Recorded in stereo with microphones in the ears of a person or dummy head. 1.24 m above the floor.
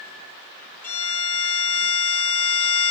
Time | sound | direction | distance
0.8 | a violin | 15° left (ahead or behind) | 0.8 m